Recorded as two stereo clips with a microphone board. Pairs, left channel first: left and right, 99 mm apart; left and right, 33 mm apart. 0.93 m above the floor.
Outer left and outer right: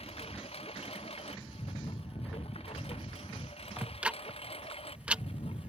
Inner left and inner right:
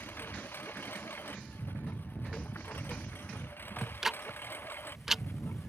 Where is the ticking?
10° right (ahead or behind).